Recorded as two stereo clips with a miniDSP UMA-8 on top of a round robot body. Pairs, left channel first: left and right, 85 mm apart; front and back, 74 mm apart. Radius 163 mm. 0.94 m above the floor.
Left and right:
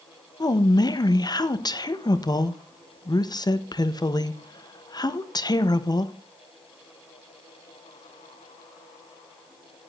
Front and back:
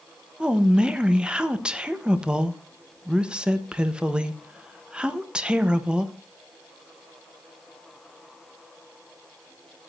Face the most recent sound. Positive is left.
turn(degrees=105)